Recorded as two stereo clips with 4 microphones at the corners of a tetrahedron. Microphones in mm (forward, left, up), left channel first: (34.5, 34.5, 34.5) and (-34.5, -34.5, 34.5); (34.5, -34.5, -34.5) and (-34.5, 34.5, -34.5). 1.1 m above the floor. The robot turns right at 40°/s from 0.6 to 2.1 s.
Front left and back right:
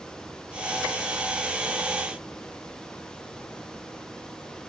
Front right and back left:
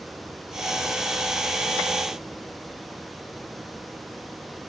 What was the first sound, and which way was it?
Only background noise.